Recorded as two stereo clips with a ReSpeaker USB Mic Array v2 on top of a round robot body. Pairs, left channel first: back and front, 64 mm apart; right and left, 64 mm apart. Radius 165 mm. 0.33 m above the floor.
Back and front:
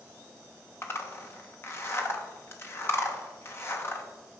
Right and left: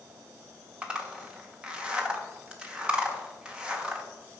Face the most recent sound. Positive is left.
turn(degrees=155)